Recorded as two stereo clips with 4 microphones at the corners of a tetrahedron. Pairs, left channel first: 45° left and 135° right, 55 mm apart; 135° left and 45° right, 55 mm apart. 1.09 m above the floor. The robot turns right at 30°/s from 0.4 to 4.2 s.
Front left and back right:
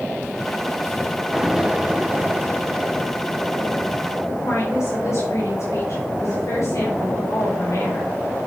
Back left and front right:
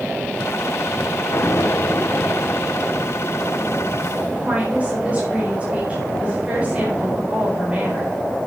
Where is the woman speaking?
20° left, 4.5 m.